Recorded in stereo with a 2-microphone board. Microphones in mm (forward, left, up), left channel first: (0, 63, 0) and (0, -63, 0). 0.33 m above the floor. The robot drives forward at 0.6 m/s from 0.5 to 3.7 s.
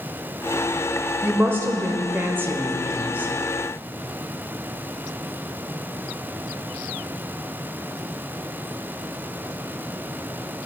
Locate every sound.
1.2 s a woman speaking: 15° right (ahead or behind), 1.0 m